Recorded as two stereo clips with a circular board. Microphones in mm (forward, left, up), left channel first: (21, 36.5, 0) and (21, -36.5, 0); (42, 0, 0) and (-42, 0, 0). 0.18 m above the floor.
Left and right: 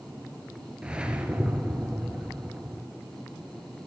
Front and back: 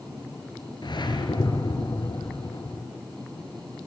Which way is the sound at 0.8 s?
15° right.